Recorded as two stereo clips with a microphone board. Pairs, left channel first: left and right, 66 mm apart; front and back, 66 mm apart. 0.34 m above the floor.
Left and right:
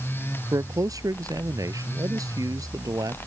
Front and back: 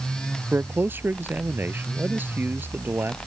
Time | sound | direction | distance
0.5 | a man speaking | 120° right | ?